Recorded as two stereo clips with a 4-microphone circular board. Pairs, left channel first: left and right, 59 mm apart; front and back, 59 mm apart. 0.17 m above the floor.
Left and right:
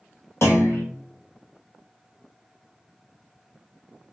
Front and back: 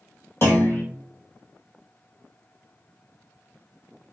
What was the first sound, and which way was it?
A clunk, 45° left.